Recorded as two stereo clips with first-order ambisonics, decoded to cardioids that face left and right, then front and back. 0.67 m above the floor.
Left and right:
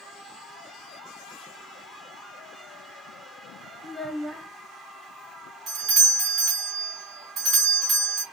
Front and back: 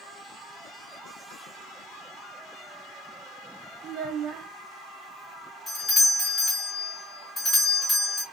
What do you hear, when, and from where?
3.8 s a child speaking: 175° left, 0.6 m
5.7 s a doorbell: 70° right, 1.9 m